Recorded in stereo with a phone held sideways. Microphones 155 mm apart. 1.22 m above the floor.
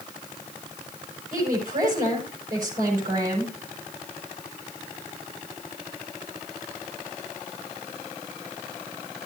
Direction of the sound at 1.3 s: 60° right (ahead or behind).